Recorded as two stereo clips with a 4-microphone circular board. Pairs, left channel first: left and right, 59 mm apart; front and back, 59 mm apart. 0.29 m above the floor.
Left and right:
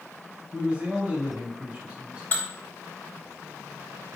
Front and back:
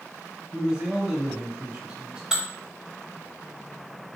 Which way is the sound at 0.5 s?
125° right.